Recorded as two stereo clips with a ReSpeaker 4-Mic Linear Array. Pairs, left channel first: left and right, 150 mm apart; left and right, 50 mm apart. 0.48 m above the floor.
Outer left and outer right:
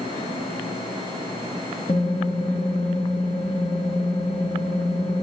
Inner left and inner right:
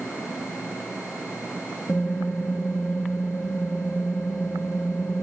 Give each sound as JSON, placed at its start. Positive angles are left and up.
{"t": 1.9, "sound": "typing on a keyboard", "side_deg": 55, "distance_m": 2.0}